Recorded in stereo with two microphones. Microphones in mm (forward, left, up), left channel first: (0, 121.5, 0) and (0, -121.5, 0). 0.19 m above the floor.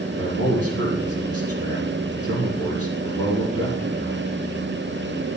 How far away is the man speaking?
About 6 m.